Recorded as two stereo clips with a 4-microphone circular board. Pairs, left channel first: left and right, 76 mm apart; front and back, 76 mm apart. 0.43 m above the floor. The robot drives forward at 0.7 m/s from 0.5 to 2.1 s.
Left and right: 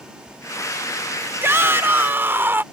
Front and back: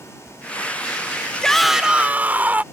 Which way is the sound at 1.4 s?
75° right.